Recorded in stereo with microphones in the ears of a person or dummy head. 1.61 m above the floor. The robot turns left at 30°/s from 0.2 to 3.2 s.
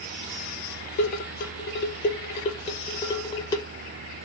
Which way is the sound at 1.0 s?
40° left (ahead or behind).